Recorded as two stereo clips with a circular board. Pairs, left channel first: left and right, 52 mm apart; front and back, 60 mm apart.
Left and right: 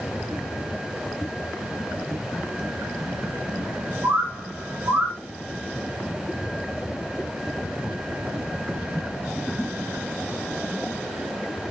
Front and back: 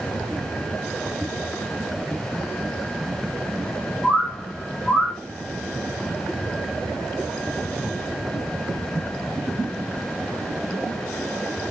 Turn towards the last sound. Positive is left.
turn(degrees=-95)